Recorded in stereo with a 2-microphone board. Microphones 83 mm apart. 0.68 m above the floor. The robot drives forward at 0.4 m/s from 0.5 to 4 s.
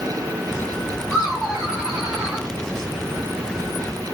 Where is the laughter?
5° right (ahead or behind), 2 m.